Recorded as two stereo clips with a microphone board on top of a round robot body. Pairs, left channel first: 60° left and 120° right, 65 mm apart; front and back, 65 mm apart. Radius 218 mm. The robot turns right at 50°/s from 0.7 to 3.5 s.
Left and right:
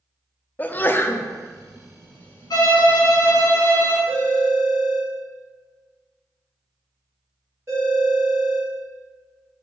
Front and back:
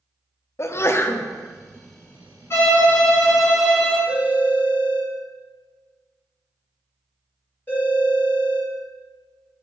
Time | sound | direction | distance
0.6 | a sneeze | 10° left | 0.6 m
2.5 | a violin | 55° left | 1.7 m
4.1 | a phone ringing | 60° right | 1.8 m